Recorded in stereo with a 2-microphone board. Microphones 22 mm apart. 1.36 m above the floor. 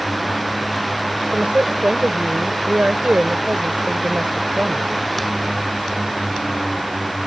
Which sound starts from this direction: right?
A woman speaking, at 1.3 s.